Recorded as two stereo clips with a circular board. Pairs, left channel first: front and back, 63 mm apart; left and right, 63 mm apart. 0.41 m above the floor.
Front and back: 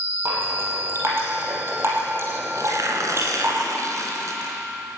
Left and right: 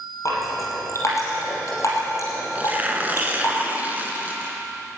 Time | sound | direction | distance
0.2 | dripping | 130° left | 5.5 m
2.5 | tearing paper | 150° right | 2.5 m